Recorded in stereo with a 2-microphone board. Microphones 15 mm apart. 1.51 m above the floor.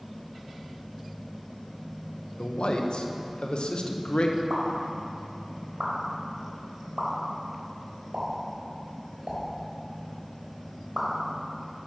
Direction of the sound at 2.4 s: 80° left.